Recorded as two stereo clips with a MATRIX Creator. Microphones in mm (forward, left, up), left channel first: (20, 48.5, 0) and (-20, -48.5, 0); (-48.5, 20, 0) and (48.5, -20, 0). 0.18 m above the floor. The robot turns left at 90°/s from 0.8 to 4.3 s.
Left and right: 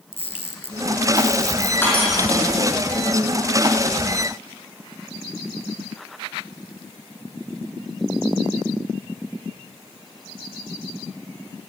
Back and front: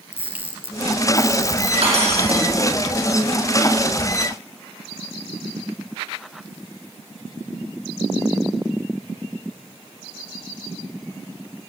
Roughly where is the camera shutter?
Ahead left.